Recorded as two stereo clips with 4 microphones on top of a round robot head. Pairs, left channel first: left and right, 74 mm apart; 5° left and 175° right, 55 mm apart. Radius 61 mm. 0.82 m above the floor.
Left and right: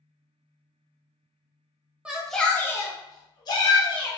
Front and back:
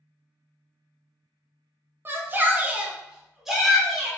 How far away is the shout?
About 0.8 m.